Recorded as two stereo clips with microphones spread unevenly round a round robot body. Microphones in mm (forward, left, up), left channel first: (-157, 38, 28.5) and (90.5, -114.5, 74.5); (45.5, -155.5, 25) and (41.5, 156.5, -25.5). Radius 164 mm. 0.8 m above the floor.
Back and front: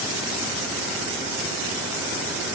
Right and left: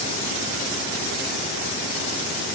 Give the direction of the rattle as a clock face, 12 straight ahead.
No rattle in this recording.